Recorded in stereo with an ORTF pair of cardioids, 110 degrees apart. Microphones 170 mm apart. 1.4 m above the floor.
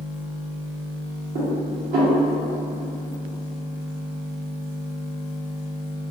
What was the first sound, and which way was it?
Dishes clattering, 65° right.